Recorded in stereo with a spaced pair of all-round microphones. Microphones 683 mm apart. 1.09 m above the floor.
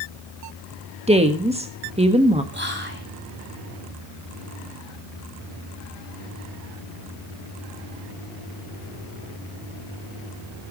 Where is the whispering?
15° right (ahead or behind), 4.5 m.